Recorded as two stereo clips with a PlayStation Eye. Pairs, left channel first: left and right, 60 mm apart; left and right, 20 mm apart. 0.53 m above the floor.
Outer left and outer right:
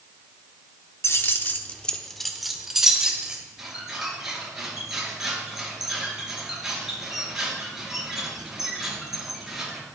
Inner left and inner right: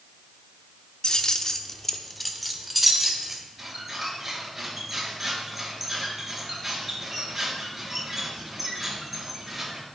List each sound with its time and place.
1.0 s keys jangling: 45° left (ahead or behind), 0.9 m; by 3.4 s 15° right (ahead or behind), 1.9 m
3.6 s a squeak: 5° right (ahead or behind), 4.5 m